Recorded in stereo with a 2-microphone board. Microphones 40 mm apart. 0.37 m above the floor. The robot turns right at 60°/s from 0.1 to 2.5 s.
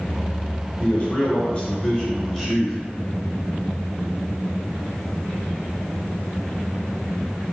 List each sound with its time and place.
0.8 s a man speaking: 80° left, 1.1 m; by 2.8 s straight behind, 1.1 m